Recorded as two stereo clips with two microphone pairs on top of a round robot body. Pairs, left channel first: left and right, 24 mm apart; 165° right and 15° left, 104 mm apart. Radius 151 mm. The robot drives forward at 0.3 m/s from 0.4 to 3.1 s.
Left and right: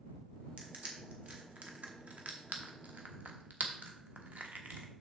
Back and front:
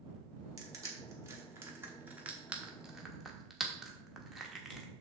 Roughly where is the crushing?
Ahead right.